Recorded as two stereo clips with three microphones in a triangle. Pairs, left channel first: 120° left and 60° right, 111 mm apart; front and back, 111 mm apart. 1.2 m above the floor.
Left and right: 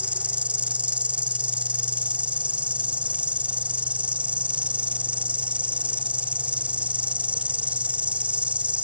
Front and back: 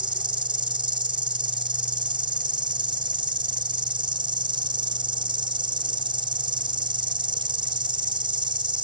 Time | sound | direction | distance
0.0 | an insect | 140° right | ?